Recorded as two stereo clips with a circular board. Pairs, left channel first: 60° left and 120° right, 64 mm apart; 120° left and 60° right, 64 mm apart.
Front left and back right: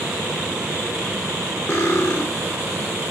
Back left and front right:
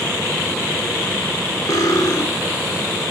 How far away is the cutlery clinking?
About 1.4 m.